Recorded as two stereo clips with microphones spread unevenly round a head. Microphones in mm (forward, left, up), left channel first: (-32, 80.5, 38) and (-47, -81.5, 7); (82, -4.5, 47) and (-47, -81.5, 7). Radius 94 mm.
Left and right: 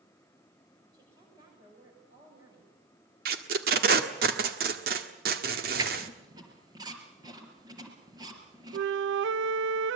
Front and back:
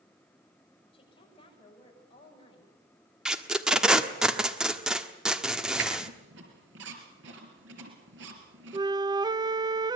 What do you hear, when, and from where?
0.9 s a woman speaking: 25° right, 8 m
3.2 s tape being pulled: 50° right, 1.5 m
5.8 s a squeak: 165° right, 4 m
8.7 s a flute: 85° right, 0.6 m